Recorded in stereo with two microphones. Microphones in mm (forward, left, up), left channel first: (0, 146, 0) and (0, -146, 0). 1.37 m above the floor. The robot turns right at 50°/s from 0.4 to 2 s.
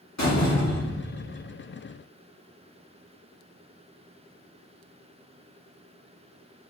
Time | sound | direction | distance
0.2 | a door slam | 110° left | 1.5 m